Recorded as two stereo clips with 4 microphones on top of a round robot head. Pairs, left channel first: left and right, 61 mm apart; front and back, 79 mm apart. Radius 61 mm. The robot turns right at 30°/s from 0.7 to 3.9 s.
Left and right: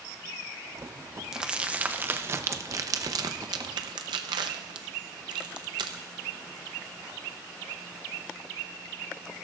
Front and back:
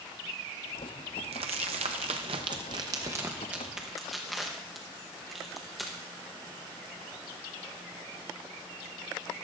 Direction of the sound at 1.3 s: 170° right.